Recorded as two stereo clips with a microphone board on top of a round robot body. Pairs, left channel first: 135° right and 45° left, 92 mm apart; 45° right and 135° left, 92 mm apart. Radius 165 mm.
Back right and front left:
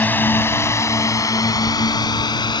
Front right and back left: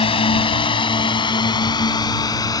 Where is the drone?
65° right; by 2.6 s 95° right.